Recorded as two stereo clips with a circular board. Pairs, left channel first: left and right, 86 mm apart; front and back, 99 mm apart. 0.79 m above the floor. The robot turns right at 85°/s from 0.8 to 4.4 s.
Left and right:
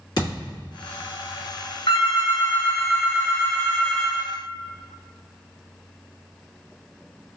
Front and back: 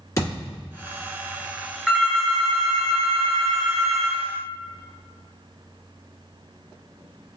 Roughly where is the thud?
Ahead left.